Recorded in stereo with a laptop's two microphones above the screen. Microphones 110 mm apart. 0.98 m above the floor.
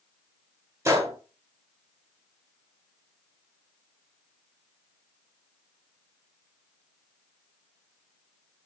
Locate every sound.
0.8 s a gunshot: 25° right (ahead or behind), 0.6 m